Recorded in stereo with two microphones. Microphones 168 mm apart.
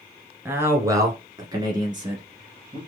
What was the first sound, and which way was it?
A man speaking, 15° right (ahead or behind).